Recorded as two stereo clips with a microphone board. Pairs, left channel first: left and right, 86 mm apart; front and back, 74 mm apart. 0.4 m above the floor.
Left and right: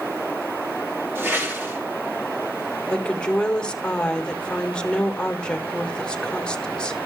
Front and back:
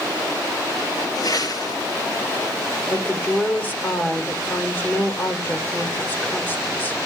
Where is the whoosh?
25° right, 5 m.